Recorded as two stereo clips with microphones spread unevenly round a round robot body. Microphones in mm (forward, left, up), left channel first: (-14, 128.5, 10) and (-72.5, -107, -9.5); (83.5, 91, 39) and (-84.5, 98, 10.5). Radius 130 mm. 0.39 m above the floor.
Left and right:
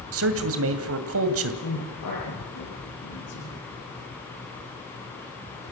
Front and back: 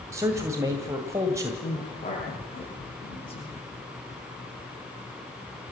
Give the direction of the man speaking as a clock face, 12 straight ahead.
4 o'clock.